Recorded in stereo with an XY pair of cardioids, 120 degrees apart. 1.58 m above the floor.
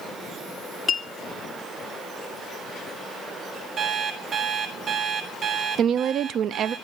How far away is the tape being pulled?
No tape being pulled in this recording.